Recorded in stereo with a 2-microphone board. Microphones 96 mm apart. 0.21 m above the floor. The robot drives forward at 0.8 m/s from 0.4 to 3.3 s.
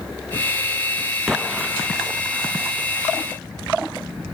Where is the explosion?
5° right (ahead or behind).